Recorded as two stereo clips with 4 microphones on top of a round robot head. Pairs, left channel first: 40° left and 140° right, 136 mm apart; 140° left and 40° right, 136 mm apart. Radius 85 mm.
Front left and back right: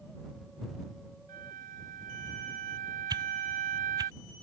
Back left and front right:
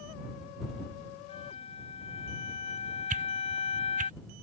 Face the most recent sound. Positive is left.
turn(degrees=-75)